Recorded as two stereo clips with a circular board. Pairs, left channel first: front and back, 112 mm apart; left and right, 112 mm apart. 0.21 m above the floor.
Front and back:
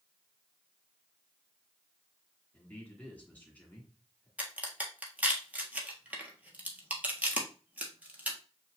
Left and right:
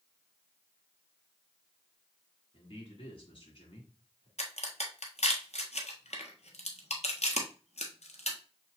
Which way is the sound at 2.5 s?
75° left.